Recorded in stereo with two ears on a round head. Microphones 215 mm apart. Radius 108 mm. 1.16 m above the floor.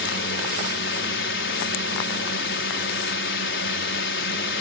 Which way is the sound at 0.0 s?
50° left (ahead or behind).